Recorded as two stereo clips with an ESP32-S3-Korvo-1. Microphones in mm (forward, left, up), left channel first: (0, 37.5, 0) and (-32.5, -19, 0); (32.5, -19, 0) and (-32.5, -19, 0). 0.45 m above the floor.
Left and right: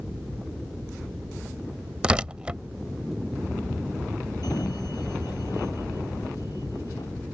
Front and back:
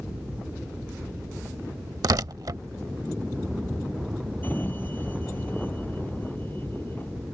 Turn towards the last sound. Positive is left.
turn(degrees=60)